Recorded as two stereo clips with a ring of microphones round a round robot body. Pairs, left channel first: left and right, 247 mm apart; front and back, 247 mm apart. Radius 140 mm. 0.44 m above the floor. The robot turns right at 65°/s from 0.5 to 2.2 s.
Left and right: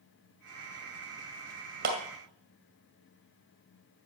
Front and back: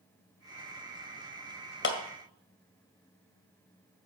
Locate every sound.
1.8 s a clap: 40° right, 1.9 m; by 2.0 s 30° right, 1.9 m